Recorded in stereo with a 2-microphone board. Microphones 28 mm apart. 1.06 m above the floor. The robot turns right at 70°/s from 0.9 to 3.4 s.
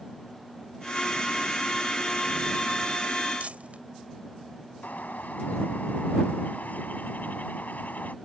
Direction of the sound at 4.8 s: 85° left.